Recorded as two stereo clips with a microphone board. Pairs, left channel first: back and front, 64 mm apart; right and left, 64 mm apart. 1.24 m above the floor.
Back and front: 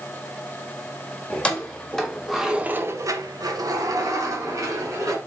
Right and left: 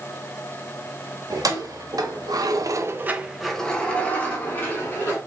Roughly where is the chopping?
I don't hear chopping.